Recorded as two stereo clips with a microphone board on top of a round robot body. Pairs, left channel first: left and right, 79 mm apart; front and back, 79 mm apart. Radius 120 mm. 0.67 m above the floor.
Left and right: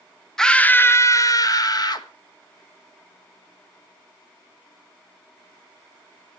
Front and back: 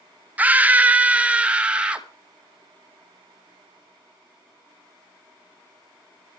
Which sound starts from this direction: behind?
A scream, at 0.4 s.